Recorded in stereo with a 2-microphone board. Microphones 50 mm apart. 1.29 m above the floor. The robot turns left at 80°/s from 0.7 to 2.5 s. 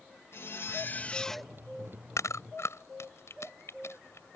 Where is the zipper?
60° left; by 1.5 s 10° right.